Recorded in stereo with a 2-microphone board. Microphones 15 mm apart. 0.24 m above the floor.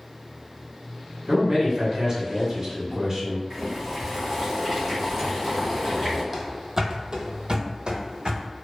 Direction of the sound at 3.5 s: 20° right (ahead or behind).